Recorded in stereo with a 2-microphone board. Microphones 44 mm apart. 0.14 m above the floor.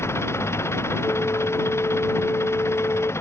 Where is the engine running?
80° left.